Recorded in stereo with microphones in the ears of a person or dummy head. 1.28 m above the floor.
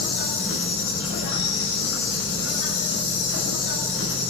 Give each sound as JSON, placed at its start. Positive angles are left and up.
{"t": 0.0, "sound": "an insect", "side_deg": 85, "distance_m": 9.0}